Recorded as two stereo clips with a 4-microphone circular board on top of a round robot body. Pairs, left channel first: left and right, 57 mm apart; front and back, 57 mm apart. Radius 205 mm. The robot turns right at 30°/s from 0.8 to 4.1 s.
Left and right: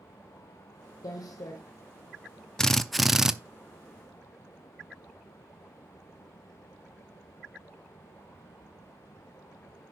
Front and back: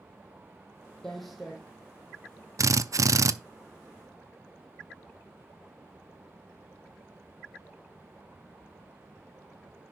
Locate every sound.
1.0 s footsteps: 80° left, 1.4 m; by 1.6 s 100° left, 1.4 m
2.6 s a drill: 170° left, 0.7 m; by 3.3 s 170° right, 0.7 m